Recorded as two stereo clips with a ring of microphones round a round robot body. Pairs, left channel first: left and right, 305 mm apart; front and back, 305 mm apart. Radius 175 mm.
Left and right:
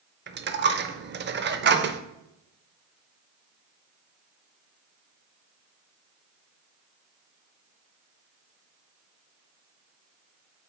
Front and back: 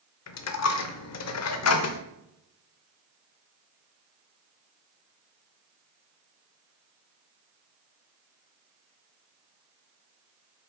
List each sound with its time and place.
0.3 s a dropped coin: 35° right, 0.7 m